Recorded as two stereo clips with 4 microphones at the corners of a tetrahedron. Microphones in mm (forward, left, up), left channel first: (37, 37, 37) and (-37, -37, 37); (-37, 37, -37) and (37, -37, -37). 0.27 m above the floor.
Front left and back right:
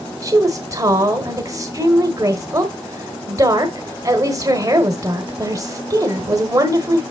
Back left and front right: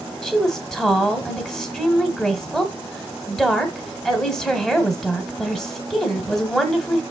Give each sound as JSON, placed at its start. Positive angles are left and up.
{"t": 0.2, "sound": "a woman speaking", "azimuth_deg": -145, "distance_m": 1.2}